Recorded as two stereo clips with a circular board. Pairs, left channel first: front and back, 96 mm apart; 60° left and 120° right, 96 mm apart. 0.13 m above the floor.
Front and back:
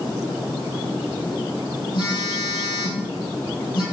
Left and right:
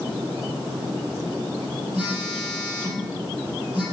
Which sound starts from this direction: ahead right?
A phone buzzing, at 1.9 s.